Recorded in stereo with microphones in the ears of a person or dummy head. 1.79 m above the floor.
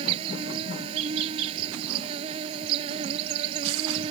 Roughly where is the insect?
Right.